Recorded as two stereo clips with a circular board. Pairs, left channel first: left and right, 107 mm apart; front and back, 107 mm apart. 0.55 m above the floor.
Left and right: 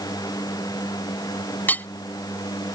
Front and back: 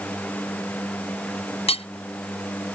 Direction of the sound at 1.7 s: 15° left.